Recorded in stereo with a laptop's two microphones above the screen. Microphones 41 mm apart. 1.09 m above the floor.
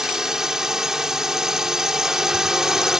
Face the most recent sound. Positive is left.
turn(degrees=-10)  # may be behind; listen again after turning